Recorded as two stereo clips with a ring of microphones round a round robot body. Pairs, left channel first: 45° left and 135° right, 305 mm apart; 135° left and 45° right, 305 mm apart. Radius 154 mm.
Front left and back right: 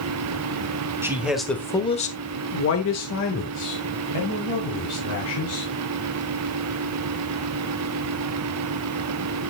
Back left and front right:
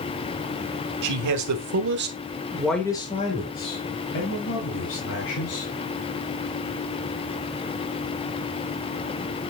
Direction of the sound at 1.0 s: 55° right.